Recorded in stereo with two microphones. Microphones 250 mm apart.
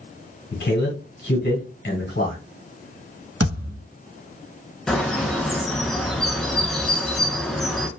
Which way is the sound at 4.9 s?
Centre (ahead or behind).